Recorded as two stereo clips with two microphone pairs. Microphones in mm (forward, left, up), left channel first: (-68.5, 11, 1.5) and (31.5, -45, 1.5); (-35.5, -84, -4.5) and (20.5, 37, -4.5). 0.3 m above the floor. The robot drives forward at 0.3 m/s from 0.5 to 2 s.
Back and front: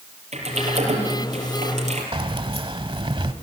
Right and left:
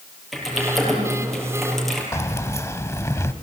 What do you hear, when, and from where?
0.3 s typing on a keyboard: 25° right, 6 m
2.1 s keys jangling: 55° right, 1.0 m